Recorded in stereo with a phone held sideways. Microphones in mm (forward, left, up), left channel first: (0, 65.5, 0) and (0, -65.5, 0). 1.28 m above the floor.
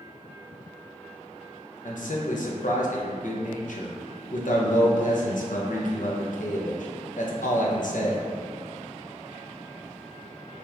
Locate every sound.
1.9 s a man speaking: 75° left (ahead or behind), 0.7 m